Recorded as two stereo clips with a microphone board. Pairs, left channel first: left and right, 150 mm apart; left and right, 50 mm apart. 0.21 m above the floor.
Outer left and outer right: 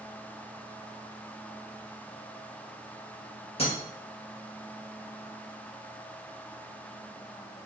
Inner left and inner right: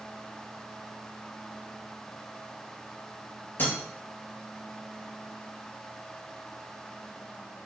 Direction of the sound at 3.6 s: 40° left (ahead or behind).